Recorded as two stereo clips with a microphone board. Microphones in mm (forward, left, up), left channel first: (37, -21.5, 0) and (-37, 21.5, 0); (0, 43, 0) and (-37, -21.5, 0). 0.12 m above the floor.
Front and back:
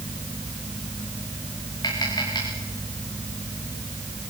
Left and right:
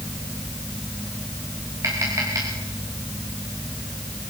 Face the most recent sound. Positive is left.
turn(degrees=-70)